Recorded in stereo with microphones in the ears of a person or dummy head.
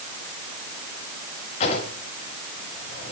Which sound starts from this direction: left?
A drawer, at 1.6 s.